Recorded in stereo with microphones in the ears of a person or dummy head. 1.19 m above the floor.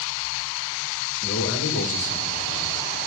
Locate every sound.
1.2 s a man speaking: 60° left (ahead or behind), 1.8 m